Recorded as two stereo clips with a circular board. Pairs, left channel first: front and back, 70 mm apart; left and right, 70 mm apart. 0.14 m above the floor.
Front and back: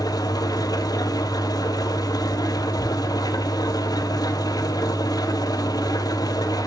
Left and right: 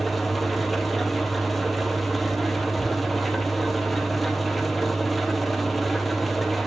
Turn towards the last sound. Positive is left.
turn(degrees=0)